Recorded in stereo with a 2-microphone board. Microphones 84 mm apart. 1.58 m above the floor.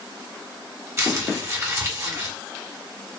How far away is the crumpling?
About 1.5 m.